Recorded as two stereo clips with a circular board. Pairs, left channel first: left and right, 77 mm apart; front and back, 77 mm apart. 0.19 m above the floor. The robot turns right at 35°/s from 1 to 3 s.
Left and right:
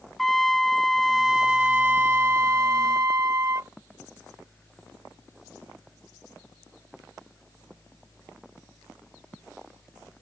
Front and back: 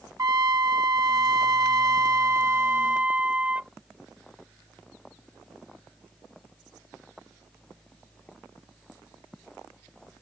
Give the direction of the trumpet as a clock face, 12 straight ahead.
6 o'clock.